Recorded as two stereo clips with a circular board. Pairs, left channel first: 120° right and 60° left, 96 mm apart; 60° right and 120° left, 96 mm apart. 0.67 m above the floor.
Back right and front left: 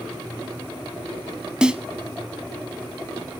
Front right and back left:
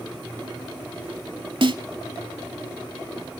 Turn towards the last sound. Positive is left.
turn(degrees=140)